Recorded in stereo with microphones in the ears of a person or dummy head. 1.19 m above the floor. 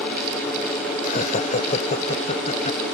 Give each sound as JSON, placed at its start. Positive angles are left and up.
{"t": 1.0, "sound": "laughter", "side_deg": 50}